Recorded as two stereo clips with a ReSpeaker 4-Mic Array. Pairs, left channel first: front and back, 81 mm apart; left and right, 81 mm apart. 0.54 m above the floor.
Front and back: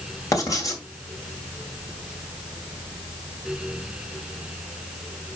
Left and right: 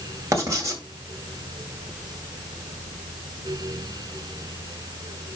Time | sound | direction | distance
0.3 | writing | 45° right | 2 m